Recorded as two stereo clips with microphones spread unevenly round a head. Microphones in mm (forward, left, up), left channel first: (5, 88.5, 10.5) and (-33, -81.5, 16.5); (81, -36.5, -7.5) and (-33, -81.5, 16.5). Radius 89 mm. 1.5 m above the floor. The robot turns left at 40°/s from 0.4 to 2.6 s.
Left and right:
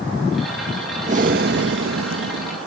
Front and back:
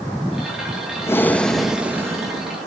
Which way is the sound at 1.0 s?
45° right.